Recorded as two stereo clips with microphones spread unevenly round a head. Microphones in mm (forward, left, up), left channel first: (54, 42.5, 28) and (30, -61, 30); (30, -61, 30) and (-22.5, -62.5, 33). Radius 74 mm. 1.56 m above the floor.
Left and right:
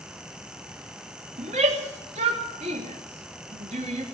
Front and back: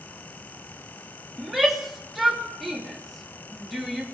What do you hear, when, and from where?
1.4 s a shout: 90° right, 3 m